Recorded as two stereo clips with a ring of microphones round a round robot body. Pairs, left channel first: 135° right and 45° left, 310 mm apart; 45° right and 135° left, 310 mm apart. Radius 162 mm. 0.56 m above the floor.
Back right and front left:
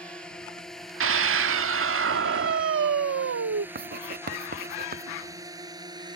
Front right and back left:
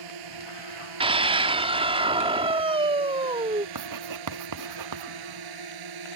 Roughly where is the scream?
Left.